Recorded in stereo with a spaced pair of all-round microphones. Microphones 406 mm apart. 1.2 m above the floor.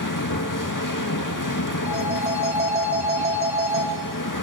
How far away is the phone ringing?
About 4 m.